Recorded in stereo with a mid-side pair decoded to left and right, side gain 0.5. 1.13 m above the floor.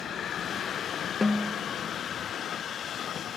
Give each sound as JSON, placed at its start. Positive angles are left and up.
{"t": 1.2, "sound": "a snare drum", "azimuth_deg": 20, "distance_m": 0.7}